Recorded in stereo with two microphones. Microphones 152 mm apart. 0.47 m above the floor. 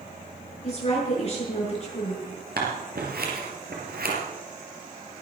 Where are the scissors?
75° right (ahead or behind), 3.5 m.